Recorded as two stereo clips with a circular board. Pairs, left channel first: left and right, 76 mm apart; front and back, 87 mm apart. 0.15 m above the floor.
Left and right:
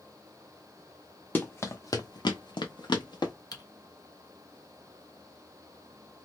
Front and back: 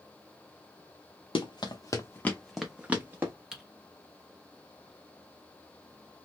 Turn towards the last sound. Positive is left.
turn(degrees=100)